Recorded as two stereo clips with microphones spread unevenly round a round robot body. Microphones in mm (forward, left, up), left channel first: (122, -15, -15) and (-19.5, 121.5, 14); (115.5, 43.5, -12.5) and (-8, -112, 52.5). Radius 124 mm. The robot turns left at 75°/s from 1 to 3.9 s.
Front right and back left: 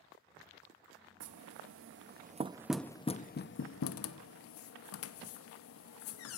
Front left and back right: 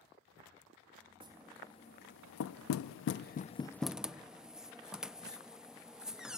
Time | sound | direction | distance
1.2 | knocking | 160° left | 0.5 m